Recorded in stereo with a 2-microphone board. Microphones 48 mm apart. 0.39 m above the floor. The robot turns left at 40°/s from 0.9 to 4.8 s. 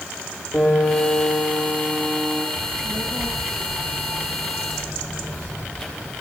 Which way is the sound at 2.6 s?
105° left.